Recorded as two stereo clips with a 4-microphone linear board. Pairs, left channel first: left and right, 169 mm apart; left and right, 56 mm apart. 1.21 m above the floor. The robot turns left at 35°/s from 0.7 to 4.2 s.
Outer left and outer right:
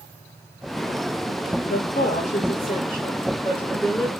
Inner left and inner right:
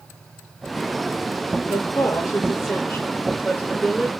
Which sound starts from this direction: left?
A woman speaking, at 1.6 s.